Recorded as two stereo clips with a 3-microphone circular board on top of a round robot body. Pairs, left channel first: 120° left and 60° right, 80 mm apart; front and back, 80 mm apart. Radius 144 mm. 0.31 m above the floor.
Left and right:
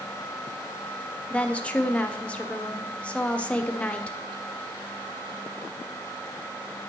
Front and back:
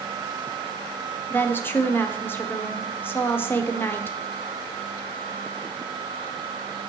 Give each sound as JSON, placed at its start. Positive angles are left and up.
{"t": 1.3, "sound": "a woman speaking", "azimuth_deg": 50, "distance_m": 1.6}